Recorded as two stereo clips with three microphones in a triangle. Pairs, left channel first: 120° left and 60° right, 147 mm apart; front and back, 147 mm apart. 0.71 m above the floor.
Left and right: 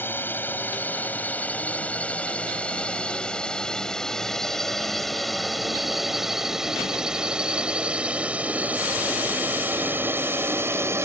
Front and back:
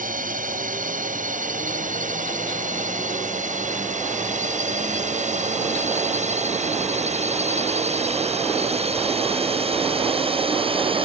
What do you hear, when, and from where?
0.0 s a drone: 165° right; by 11.1 s 130° right